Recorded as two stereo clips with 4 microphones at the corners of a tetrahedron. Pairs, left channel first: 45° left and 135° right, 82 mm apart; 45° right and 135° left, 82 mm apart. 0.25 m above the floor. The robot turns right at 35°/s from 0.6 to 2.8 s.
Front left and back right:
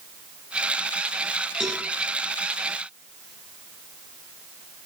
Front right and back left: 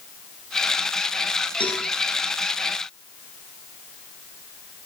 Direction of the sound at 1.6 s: 50° right.